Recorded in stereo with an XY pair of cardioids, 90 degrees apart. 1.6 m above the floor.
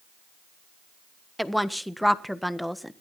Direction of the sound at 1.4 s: Straight ahead.